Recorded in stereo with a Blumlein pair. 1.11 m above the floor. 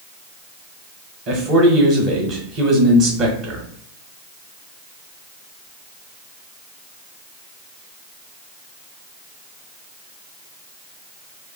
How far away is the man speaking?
About 0.9 m.